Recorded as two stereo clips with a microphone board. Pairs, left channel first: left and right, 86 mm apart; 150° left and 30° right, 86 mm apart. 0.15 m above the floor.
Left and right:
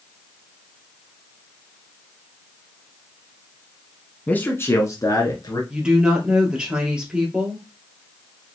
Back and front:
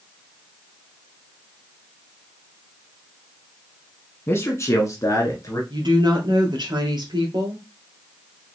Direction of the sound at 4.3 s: 140° left.